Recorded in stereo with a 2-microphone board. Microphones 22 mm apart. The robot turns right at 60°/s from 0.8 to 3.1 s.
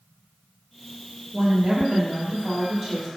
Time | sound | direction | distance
1.3 | a woman speaking | 135° right | 1.1 m